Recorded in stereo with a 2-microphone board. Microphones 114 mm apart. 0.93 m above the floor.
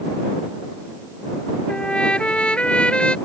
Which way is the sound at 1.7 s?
10° left (ahead or behind).